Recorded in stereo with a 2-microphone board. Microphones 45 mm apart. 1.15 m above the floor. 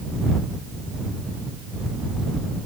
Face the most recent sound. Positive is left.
No sound to turn to.